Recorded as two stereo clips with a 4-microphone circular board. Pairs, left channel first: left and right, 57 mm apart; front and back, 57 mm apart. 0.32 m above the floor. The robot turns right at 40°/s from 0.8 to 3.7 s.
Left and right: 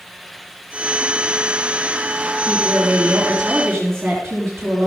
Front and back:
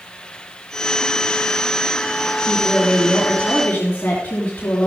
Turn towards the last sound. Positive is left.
turn(degrees=-55)